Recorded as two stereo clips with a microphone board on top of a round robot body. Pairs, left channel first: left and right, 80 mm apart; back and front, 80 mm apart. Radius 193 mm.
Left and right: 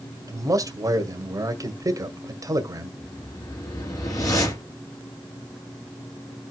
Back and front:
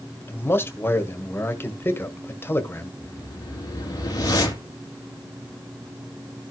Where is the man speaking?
120° right, 1.7 m.